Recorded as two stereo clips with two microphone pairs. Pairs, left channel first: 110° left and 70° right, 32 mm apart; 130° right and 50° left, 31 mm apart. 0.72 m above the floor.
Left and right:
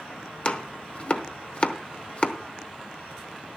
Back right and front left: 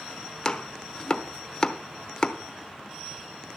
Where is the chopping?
160° left, 0.8 m.